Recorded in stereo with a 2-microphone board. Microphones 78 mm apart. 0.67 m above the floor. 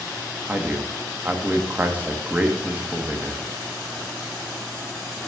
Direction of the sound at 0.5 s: 20° right (ahead or behind).